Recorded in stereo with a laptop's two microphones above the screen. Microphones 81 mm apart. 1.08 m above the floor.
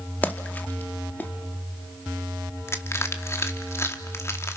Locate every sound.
0.2 s a splash: 20° left (ahead or behind), 1.7 m
2.7 s crushing: 30° left (ahead or behind), 2 m